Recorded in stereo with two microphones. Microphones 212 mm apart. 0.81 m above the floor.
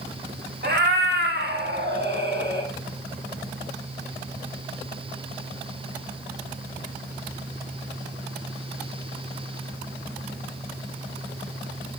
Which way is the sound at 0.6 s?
55° right (ahead or behind).